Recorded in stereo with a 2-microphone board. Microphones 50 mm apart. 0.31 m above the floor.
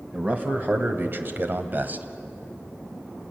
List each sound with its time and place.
0.1 s a man speaking: 30° right (ahead or behind), 2 m; by 2.0 s 35° right (ahead or behind), 1.8 m